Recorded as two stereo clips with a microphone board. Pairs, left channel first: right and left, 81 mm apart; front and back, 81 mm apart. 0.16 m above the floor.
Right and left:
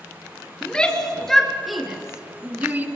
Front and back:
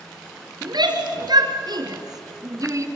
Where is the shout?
165° right, 3.5 m; by 2.9 s 150° left, 2 m.